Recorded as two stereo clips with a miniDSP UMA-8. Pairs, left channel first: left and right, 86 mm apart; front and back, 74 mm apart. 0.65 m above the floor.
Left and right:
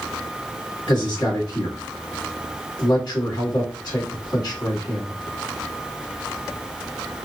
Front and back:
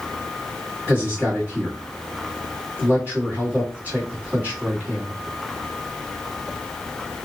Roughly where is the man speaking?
Behind left.